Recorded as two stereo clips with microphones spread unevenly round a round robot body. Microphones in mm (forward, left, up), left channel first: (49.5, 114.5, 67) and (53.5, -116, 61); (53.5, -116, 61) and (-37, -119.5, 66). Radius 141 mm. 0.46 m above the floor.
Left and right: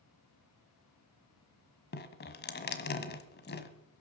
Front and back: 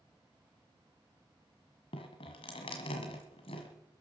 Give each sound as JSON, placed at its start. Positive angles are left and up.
{"t": 1.9, "sound": "dripping", "azimuth_deg": 45, "distance_m": 1.4}